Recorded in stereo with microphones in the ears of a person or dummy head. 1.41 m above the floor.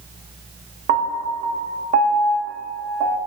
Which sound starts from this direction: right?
A piano, at 0.9 s.